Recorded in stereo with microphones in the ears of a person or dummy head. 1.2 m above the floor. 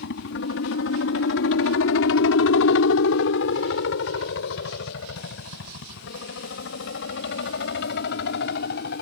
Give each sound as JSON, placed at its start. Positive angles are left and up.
{"t": 0.0, "sound": "a helicopter", "side_deg": 55}